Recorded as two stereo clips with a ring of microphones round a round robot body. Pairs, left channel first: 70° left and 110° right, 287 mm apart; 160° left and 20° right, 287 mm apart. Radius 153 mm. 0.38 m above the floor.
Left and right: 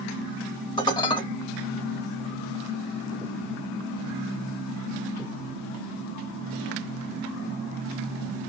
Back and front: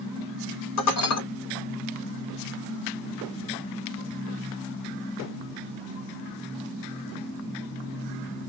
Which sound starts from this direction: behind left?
Dishes clattering, at 0.8 s.